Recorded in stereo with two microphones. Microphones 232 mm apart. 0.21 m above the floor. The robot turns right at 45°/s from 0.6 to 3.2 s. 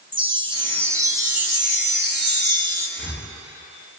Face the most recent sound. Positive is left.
turn(degrees=55)  # may be behind; listen again after turning